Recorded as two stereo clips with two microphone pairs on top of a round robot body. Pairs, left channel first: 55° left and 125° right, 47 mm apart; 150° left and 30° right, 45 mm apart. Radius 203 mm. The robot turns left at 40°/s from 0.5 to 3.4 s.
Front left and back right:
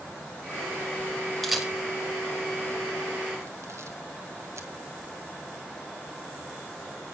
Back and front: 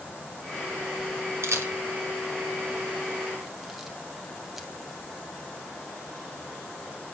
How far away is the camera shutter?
About 2.5 m.